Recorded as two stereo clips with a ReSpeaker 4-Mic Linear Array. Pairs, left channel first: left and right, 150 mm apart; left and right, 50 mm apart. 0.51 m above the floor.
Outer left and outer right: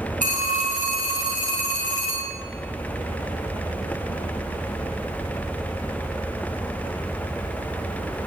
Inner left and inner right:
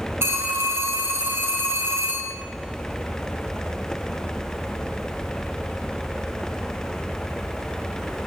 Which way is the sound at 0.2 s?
55° right (ahead or behind).